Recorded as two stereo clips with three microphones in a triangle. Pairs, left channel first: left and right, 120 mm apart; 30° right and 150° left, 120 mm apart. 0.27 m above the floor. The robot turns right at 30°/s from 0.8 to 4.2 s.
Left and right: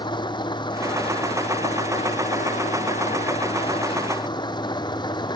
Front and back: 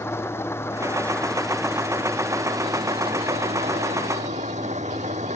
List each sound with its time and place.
0.0 s an engine running: 40° left; by 5.4 s 140° left